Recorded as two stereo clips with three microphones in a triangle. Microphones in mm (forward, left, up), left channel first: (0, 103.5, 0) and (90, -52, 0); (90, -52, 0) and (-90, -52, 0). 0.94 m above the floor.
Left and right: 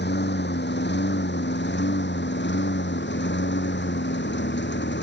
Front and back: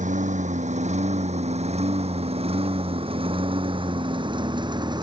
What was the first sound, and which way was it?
A lawn mower, 135° left.